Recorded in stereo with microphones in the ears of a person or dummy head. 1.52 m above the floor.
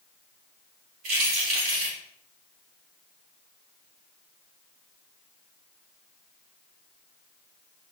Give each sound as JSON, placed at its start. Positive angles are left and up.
{"t": 1.0, "sound": "keys jangling", "side_deg": -45, "distance_m": 3.5}